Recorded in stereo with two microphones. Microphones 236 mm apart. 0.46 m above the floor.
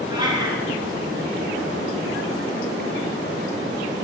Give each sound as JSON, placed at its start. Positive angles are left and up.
{"t": 0.1, "sound": "a cat meowing", "side_deg": -15, "distance_m": 1.8}